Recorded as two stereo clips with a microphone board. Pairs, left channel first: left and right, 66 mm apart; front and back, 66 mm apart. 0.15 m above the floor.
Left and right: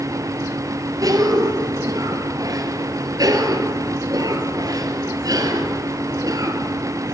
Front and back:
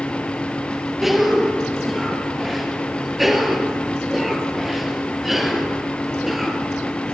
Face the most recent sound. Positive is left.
turn(degrees=-95)